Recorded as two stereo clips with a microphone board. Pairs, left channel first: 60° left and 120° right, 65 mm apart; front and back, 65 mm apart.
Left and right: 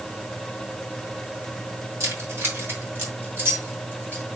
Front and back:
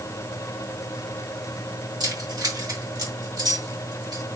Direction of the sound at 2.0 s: 170° right.